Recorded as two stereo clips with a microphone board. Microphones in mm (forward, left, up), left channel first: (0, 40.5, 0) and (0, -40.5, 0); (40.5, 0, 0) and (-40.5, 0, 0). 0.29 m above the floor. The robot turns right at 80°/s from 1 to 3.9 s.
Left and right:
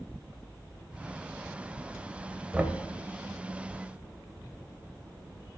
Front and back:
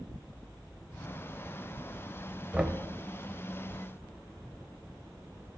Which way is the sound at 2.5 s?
130° right.